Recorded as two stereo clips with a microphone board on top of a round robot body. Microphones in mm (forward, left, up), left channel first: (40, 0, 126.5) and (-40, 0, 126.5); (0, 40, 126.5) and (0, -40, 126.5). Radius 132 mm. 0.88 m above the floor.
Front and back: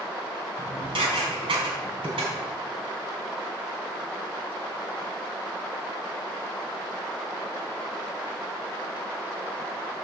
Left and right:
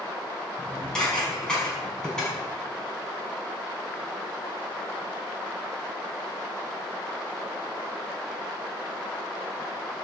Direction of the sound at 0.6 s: 170° left.